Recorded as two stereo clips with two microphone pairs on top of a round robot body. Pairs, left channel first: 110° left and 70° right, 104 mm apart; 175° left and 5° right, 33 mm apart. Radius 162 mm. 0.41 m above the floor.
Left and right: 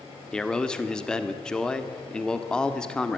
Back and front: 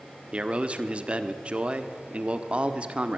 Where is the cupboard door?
No cupboard door in this recording.